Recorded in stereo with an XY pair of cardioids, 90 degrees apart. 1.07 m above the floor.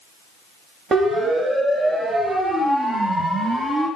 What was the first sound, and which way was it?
A siren, 40° right.